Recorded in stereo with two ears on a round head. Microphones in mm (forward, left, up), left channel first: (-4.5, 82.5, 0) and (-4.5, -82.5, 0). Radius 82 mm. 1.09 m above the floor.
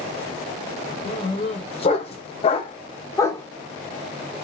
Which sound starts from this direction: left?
A dog barking, at 1.1 s.